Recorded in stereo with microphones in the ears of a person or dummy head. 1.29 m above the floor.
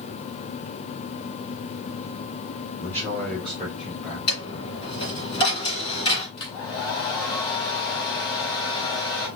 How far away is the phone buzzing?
I don't hear a phone buzzing.